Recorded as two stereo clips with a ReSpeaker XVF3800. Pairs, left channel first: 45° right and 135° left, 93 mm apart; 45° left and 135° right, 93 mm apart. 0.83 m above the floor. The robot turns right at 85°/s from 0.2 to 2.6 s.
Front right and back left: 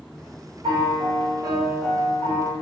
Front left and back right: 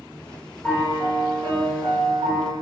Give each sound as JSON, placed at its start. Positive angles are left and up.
{"t": 0.6, "sound": "a piano", "azimuth_deg": 115, "distance_m": 1.1}